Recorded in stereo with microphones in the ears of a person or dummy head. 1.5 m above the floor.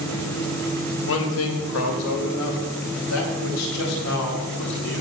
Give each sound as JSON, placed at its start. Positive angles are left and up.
{"t": 1.1, "sound": "a man speaking", "side_deg": 75, "distance_m": 1.8}